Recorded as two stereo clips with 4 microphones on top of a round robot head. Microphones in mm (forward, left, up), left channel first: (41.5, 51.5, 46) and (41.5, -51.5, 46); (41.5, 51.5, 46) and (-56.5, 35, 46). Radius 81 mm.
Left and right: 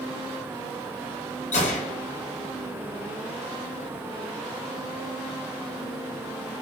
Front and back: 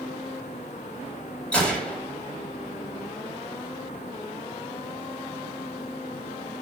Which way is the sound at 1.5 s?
90° left.